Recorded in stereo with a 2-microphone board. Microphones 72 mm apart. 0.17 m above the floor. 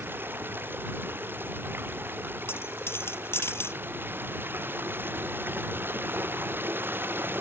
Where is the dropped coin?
35° left (ahead or behind).